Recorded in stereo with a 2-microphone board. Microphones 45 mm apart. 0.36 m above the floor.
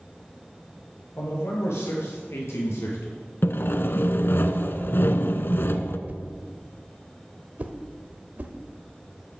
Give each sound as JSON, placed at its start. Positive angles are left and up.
{"t": 1.2, "sound": "a man speaking", "side_deg": 75, "distance_m": 7.0}
{"t": 3.4, "sound": "sawing", "side_deg": 60, "distance_m": 0.9}
{"t": 6.1, "sound": "a whoosh", "side_deg": -40, "distance_m": 1.0}